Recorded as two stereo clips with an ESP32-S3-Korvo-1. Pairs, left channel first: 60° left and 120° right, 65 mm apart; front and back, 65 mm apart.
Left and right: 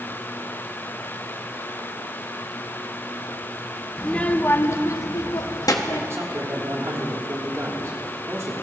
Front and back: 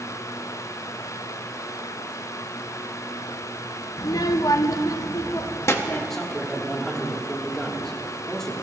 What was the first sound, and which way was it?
A child speaking, 20° right.